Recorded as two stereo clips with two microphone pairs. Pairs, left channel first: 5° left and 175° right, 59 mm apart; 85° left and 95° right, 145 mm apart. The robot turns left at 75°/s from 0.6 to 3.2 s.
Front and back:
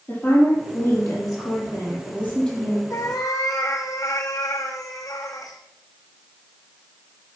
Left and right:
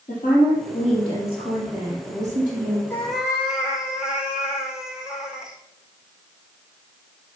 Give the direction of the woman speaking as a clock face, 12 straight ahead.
10 o'clock.